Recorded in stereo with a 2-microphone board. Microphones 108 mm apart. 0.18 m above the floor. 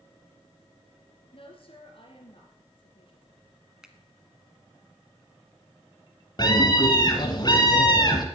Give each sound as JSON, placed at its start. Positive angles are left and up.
{"t": 1.3, "sound": "a woman speaking", "side_deg": 55, "distance_m": 3.0}
{"t": 3.8, "sound": "a finger snap", "side_deg": -5, "distance_m": 1.3}
{"t": 6.4, "sound": "a scream", "side_deg": 40, "distance_m": 1.6}